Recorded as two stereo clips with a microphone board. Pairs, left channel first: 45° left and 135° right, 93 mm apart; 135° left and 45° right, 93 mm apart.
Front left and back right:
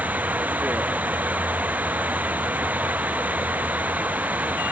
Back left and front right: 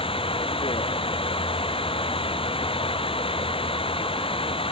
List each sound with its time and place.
0.0 s running water: 150° left